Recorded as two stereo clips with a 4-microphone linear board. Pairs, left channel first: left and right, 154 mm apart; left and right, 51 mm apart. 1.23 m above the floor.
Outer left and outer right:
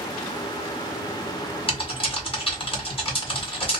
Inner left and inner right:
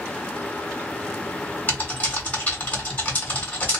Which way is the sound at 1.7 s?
35° left (ahead or behind).